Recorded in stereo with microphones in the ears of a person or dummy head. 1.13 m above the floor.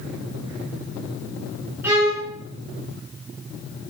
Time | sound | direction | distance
1.8 | a violin | 10° right (ahead or behind) | 3 m